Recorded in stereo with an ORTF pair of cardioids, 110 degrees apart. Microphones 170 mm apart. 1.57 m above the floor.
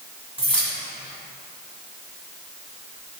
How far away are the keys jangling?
About 1.4 m.